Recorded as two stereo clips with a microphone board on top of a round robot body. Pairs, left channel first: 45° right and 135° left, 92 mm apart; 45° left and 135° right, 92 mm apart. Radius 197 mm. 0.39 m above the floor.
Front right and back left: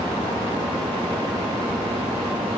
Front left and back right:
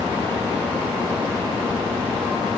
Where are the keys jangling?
I don't hear keys jangling.